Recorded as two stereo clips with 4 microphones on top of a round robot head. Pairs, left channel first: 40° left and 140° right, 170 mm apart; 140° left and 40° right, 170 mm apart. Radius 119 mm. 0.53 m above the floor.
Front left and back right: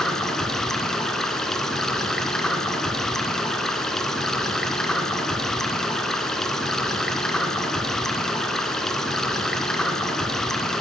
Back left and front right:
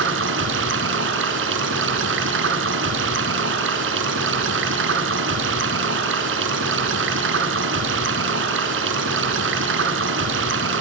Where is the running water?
45° right, 1.5 m.